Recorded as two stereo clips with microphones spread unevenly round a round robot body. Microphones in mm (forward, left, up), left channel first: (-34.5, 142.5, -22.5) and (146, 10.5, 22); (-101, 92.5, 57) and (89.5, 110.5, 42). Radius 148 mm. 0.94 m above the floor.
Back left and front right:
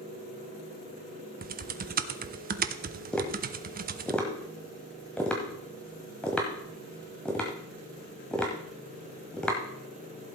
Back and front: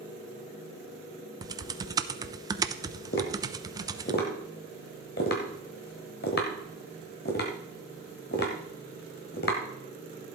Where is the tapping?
125° right, 1.2 m.